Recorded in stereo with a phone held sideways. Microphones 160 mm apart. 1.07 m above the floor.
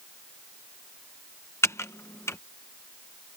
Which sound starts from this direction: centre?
Typing on a keyboard, at 1.6 s.